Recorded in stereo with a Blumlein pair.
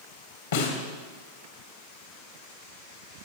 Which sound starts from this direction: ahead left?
A snare drum, at 0.5 s.